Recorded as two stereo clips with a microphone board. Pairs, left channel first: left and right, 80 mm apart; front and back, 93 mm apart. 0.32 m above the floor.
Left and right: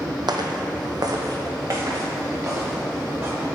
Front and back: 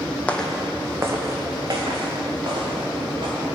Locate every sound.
0.3 s footsteps: 75° right, 0.7 m; by 3.4 s 150° right, 3 m